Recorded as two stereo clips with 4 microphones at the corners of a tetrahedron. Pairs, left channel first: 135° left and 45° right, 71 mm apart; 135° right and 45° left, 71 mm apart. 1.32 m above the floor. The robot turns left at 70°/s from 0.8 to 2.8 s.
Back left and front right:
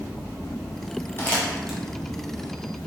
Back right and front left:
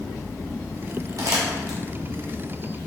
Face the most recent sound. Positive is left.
turn(degrees=-35)